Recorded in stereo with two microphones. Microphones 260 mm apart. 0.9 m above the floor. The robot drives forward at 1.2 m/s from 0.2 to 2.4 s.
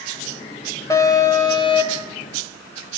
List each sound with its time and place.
0.9 s an alarm: 10° left (ahead or behind), 2.5 m; by 2.1 s 20° left (ahead or behind), 1.5 m